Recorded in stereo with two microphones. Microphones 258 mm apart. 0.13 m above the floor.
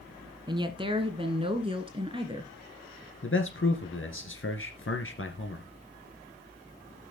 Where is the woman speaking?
15° right (ahead or behind), 1.2 m; by 2.5 s 20° right (ahead or behind), 1.8 m.